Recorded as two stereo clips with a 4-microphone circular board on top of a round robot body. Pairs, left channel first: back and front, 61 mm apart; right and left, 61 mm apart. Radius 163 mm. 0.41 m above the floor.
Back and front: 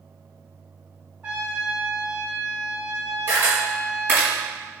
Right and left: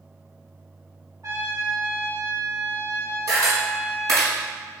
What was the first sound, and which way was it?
A trumpet, 70° left.